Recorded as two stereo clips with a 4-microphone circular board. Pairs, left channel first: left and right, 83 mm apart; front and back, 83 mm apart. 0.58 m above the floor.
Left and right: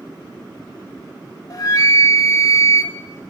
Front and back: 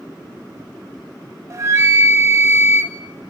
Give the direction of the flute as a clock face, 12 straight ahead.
8 o'clock.